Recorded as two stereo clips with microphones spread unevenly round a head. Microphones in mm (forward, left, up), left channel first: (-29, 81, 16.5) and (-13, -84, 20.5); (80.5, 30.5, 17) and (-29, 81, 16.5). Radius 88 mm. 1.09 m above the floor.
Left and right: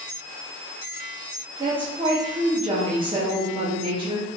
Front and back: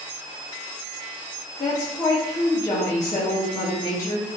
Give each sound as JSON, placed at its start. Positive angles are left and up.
{"t": 1.6, "sound": "a woman speaking", "azimuth_deg": -60, "distance_m": 0.6}